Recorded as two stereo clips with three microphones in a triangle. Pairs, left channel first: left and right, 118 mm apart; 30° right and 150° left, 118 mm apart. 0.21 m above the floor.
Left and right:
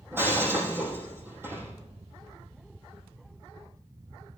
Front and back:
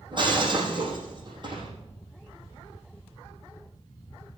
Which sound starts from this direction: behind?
Breaking glass, at 0.1 s.